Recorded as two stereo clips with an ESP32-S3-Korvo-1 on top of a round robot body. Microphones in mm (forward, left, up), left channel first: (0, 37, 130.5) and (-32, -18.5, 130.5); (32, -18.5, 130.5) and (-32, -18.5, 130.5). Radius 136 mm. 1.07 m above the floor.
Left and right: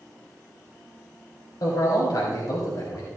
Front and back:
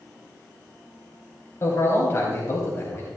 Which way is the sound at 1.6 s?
45° left.